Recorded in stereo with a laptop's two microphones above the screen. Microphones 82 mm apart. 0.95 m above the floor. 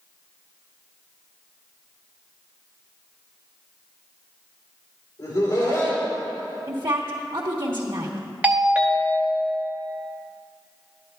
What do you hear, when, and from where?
5.2 s laughter: 65° left (ahead or behind), 3 m
6.7 s a woman speaking: 80° right, 1.1 m
8.4 s a doorbell: 20° right (ahead or behind), 0.7 m